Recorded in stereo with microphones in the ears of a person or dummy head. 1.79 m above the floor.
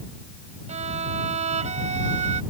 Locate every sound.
0.7 s a violin: 40° right (ahead or behind)